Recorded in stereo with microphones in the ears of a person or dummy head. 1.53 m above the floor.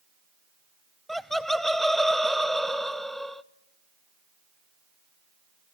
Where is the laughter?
Centre (ahead or behind), 0.7 m.